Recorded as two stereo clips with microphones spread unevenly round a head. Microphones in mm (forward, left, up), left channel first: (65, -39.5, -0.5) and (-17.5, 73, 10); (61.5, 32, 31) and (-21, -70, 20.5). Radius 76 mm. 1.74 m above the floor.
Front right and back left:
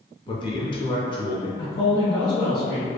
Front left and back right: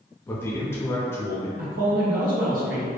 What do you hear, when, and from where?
0.3 s a man speaking: 10° right, 0.6 m
1.6 s a man speaking: 120° right, 0.8 m